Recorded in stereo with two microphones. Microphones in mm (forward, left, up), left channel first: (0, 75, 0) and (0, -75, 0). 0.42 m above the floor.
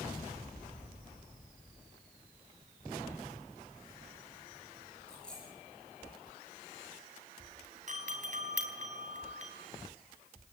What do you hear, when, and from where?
5.1 s a dropped coin: 5° left (ahead or behind), 9.5 m
7.9 s a doorbell: 50° right (ahead or behind), 4 m